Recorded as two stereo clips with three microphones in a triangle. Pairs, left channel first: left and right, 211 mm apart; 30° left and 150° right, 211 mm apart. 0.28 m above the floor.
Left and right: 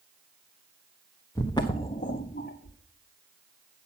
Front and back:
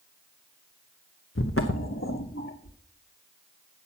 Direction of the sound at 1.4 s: 15° left.